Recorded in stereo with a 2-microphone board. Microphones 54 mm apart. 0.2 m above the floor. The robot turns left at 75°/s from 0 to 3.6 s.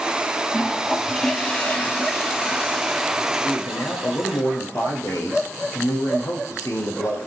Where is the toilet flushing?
5° right (ahead or behind), 1.6 m; by 4.4 s 10° right (ahead or behind), 1.6 m.